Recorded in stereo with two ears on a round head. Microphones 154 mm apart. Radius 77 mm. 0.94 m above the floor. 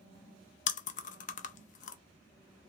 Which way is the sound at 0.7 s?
45° left (ahead or behind).